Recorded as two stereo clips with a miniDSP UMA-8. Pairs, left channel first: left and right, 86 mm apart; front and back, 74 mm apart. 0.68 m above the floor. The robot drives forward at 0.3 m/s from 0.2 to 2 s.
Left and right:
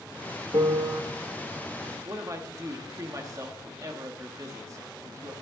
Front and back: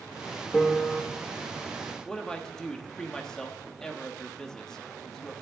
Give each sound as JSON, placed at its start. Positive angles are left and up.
{"t": 0.5, "sound": "a piano", "azimuth_deg": -80, "distance_m": 1.0}
{"t": 2.0, "sound": "a man speaking", "azimuth_deg": -75, "distance_m": 1.3}